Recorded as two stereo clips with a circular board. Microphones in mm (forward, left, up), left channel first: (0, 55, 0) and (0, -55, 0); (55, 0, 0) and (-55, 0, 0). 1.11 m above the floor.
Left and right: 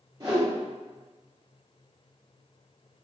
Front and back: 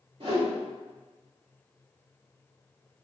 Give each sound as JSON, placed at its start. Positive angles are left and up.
{"t": 0.2, "sound": "a whoosh", "azimuth_deg": -145, "distance_m": 1.5}